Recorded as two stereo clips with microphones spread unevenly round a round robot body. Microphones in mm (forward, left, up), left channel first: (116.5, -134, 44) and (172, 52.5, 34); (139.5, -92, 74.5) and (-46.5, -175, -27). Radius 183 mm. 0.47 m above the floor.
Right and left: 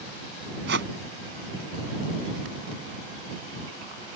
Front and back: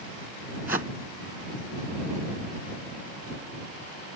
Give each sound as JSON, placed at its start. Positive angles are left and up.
{"t": 0.7, "sound": "a whoosh", "azimuth_deg": 125}